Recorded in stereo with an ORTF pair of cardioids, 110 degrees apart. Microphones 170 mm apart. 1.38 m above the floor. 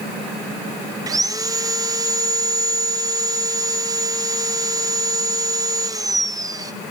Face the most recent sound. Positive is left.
turn(degrees=-20)